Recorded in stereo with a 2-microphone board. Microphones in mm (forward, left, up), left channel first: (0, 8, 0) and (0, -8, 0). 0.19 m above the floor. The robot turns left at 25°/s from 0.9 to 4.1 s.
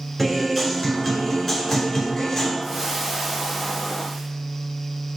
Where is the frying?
150° right, 3 m; by 4.3 s 170° left, 3 m.